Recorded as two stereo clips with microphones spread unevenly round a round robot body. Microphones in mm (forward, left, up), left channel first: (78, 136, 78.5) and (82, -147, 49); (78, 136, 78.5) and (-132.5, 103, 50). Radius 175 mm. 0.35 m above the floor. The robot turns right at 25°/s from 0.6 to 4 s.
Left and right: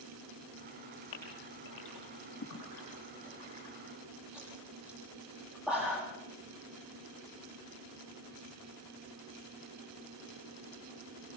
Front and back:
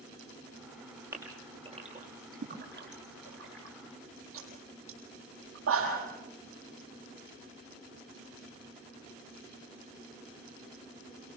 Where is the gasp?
110° left, 7 m; by 6.0 s 175° right, 7 m.